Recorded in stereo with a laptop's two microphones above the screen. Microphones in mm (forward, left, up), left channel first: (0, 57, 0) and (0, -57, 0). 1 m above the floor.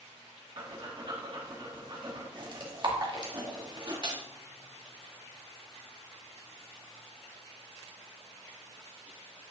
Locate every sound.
0.6 s breathing: 40° right (ahead or behind), 1.2 m